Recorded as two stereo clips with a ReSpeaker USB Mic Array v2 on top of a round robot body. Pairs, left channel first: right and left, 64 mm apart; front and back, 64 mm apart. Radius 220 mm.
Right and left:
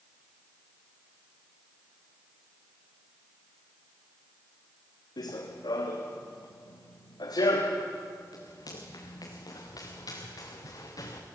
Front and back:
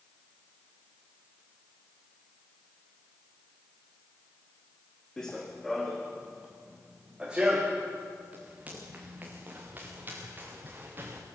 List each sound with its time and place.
5.2 s running footsteps: 80° right, 2 m; by 11.2 s 120° right, 4.5 m